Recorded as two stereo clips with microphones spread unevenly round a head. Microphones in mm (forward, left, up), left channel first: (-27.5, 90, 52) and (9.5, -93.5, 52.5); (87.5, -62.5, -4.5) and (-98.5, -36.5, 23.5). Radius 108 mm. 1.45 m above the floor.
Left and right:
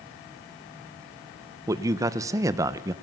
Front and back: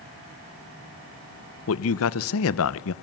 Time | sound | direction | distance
1.7 | a man speaking | 5° right | 1.0 m